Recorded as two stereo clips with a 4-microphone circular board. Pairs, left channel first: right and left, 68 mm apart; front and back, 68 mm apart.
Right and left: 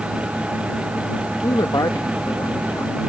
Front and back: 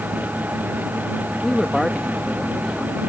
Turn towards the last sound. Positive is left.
turn(degrees=-85)